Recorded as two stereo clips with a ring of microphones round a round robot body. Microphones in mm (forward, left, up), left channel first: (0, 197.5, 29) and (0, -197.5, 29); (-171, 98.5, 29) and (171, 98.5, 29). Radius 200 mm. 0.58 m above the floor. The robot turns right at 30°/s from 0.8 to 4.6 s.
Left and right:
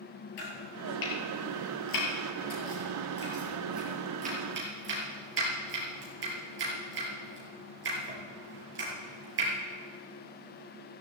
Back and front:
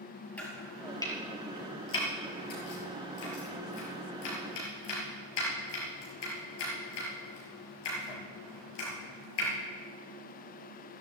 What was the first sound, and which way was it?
Chopping, 95° left.